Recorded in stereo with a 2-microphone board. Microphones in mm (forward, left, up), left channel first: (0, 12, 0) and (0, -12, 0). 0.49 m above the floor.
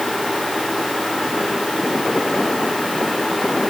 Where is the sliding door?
I don't hear a sliding door.